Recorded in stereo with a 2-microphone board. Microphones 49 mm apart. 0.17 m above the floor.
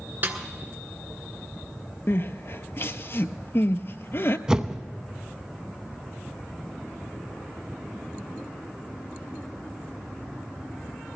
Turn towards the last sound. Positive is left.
turn(degrees=-15)  # may be behind; listen again after turning